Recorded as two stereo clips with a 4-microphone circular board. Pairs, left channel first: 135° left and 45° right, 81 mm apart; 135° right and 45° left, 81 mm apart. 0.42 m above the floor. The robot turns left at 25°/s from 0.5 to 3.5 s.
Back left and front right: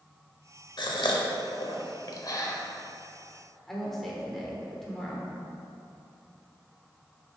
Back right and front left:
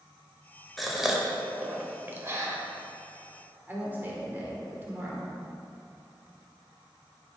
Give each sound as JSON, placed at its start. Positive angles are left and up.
{"t": 0.8, "sound": "a gasp", "azimuth_deg": 135, "distance_m": 0.7}
{"t": 3.7, "sound": "a woman speaking", "azimuth_deg": 55, "distance_m": 1.0}